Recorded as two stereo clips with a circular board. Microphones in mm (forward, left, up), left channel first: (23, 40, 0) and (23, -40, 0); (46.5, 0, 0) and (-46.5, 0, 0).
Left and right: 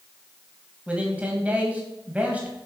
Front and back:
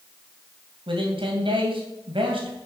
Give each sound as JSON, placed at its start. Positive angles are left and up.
{"t": 0.9, "sound": "a man speaking", "azimuth_deg": -160, "distance_m": 2.5}